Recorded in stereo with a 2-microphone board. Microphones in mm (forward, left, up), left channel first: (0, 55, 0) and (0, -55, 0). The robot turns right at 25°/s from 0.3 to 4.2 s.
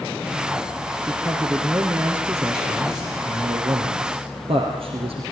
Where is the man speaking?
170° left, 4 m; by 5.2 s 110° right, 4 m.